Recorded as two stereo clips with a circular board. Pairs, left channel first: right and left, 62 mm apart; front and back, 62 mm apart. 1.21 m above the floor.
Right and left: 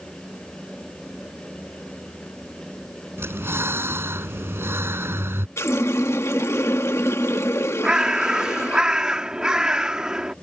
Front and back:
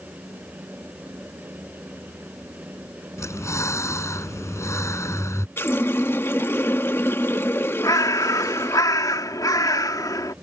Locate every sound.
3.2 s breathing: 40° left
5.6 s a running tap: 50° right
7.8 s a bird: 15° left